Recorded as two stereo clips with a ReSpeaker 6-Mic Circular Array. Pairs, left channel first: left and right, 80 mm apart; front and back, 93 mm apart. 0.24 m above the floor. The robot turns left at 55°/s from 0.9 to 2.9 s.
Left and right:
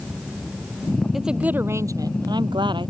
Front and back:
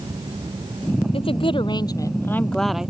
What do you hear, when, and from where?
1.1 s a woman speaking: 5° right; by 2.9 s 100° right